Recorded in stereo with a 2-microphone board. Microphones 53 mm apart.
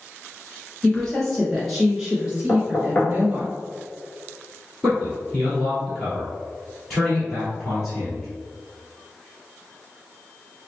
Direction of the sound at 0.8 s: 15° left (ahead or behind).